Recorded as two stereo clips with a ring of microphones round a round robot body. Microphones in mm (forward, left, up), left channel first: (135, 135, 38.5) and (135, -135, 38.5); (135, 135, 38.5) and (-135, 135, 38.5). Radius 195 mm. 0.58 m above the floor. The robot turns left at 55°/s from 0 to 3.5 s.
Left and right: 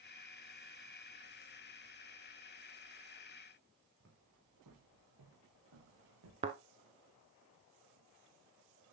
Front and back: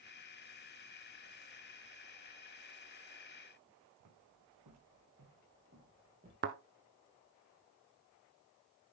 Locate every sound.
4.0 s footsteps: 155° right, 3 m; by 6.3 s 105° right, 4 m
6.4 s a thud: 150° right, 0.6 m